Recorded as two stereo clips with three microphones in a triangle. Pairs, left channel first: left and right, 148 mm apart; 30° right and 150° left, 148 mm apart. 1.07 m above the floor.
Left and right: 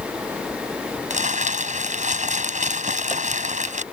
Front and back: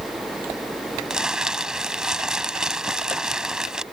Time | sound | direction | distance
1.1 | crumpling | 125° right | ?